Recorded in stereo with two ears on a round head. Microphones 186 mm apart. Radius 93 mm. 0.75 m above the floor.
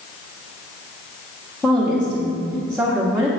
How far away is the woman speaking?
About 1.0 m.